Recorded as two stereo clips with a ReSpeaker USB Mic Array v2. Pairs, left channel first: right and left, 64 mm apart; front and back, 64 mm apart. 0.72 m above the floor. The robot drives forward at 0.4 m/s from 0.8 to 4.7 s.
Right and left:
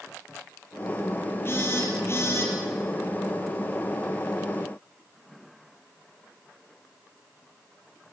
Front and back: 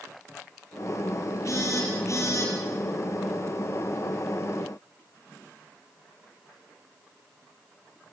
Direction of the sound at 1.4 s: 40° right.